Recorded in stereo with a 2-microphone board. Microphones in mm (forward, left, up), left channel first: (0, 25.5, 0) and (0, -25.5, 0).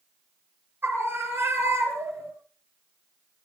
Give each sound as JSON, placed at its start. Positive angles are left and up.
{"t": 0.8, "sound": "a scream", "side_deg": -45, "distance_m": 5.5}